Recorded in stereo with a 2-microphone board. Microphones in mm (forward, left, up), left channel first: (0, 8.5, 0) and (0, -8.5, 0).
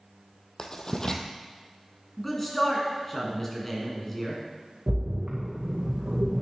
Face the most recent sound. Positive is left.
turn(degrees=-80)